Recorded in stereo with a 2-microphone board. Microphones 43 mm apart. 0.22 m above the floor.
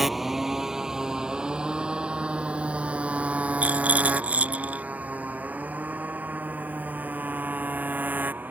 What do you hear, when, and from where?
0.0 s a motorcycle: 5° right (ahead or behind); by 8.5 s 45° right (ahead or behind)
3.6 s a rattle: 35° right (ahead or behind)